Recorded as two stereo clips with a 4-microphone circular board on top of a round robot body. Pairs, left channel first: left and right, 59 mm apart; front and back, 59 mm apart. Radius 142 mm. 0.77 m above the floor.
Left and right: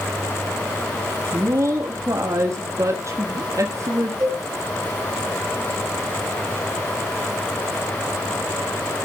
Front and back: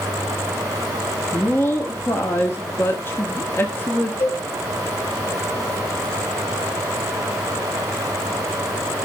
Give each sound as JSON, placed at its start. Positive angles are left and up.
{"t": 1.3, "sound": "a woman speaking", "azimuth_deg": -50, "distance_m": 1.5}
{"t": 4.2, "sound": "a cowbell", "azimuth_deg": -55, "distance_m": 3.5}